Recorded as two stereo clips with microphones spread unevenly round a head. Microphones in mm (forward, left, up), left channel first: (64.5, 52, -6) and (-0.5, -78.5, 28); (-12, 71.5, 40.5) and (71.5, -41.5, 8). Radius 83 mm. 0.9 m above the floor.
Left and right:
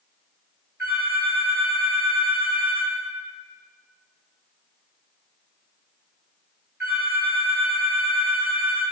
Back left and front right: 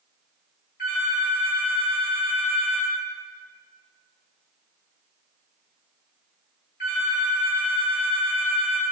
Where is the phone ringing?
170° left, 1.8 m.